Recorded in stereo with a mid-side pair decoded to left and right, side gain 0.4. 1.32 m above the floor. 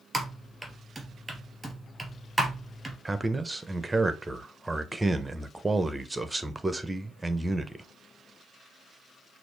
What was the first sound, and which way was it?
Typing on a keyboard, 15° right.